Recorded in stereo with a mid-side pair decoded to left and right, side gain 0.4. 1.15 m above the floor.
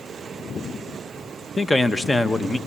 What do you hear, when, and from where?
1.6 s a man speaking: 15° left, 1.0 m